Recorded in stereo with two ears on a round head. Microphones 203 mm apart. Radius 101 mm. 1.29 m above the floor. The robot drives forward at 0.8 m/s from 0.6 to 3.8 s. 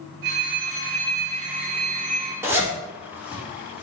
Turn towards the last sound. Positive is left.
turn(degrees=-5)  # may be behind; listen again after turning